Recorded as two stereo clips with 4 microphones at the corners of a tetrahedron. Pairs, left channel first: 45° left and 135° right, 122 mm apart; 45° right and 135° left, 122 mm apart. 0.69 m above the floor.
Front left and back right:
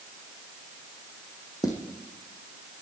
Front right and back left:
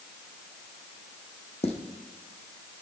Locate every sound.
1.6 s footsteps: 15° right, 2.5 m